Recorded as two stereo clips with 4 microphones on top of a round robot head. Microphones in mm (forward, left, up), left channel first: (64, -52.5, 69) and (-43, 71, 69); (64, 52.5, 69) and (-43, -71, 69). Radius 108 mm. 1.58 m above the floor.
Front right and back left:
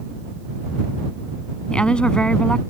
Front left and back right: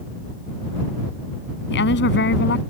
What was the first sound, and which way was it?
A woman speaking, 35° left.